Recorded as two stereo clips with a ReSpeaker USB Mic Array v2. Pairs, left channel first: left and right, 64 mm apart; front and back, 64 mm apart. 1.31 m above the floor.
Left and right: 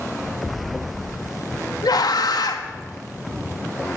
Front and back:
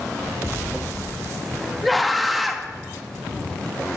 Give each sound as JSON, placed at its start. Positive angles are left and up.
{"t": 1.8, "sound": "a scream", "azimuth_deg": 90, "distance_m": 1.6}